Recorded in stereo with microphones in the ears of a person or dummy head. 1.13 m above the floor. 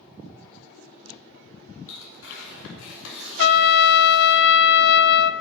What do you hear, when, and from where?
1.9 s tearing paper: 80° left, 4 m
3.4 s a trumpet: 75° left (ahead or behind), 0.5 m